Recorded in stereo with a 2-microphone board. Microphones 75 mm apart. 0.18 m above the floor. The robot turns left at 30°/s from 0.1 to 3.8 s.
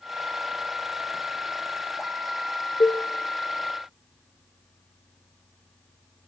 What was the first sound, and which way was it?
A cowbell, 75° left (ahead or behind).